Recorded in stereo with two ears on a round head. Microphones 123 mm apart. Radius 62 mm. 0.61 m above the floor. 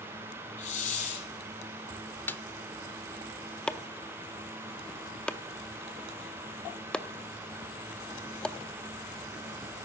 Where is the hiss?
60° left (ahead or behind), 5 m.